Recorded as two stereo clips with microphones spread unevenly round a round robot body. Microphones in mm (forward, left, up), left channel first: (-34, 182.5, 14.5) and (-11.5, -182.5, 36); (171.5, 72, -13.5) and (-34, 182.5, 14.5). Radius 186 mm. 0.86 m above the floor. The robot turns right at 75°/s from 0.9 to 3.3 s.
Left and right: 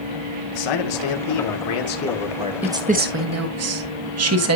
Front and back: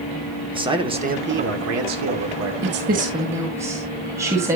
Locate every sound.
0.5 s a man speaking: 80° left, 2 m; by 2.5 s 160° right, 2 m
2.6 s a woman speaking: 175° right, 1.3 m; by 4.6 s 125° right, 1.3 m